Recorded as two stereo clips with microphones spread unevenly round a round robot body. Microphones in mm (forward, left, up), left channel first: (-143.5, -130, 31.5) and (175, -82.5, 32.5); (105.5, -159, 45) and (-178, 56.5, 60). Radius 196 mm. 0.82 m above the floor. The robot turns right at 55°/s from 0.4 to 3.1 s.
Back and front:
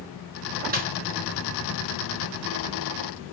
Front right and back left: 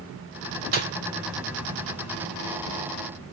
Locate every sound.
0.7 s a snare drum: 75° left, 1.4 m; by 0.9 s 85° left, 1.4 m